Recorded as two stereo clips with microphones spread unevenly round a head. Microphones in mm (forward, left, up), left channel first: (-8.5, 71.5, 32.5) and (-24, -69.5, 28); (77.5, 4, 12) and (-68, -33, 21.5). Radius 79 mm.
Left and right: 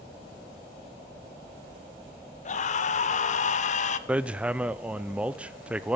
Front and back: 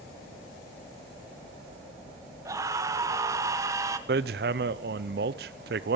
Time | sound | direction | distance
2.5 | a scream | 125° left | 1.2 m
4.1 | hammering | straight behind | 0.5 m